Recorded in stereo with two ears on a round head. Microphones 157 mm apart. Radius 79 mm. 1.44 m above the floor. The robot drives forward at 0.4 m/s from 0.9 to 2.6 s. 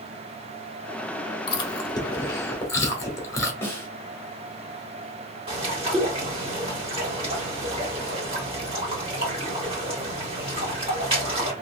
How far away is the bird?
About 3 m.